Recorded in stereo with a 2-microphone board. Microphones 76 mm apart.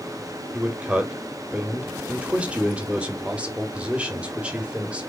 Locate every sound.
0.5 s a man speaking: 15° right (ahead or behind), 1.1 m